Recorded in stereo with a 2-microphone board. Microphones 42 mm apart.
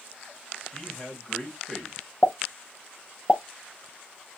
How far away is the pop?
About 0.6 m.